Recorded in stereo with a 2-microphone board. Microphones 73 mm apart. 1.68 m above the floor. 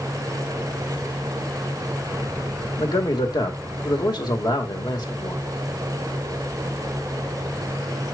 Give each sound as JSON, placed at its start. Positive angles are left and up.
{"t": 2.8, "sound": "a man speaking", "side_deg": 65, "distance_m": 1.8}